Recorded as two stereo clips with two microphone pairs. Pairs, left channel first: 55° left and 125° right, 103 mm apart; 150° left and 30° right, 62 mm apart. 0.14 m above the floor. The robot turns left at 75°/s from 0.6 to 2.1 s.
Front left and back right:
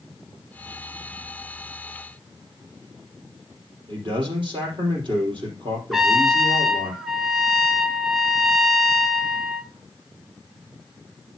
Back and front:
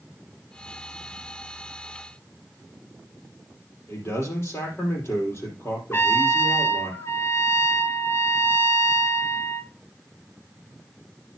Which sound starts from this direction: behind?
A man speaking, at 3.9 s.